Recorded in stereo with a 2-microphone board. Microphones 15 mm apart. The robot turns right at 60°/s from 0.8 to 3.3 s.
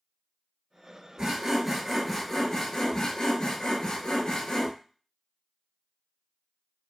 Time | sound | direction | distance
1.2 | sawing | 50° right | 0.8 m